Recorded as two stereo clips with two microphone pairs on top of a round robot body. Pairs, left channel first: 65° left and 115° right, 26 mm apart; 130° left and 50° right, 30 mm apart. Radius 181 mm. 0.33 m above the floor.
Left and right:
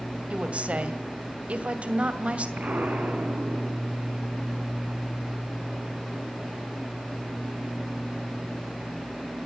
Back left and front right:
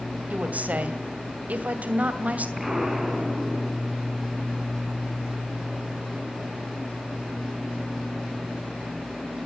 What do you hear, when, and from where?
0.3 s a woman speaking: 85° right, 2.5 m
2.6 s an explosion: 130° right, 5 m